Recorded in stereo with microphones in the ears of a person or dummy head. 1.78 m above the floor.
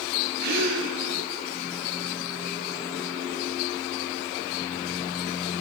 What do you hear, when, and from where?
0.4 s a gasp: 65° right (ahead or behind), 7 m